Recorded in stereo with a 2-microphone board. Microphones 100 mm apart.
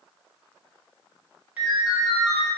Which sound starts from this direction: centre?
A ringtone, at 1.6 s.